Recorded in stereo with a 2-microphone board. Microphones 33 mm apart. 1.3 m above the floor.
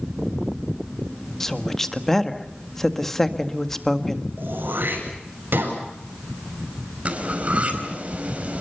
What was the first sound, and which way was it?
A woman speaking, 5° left (ahead or behind).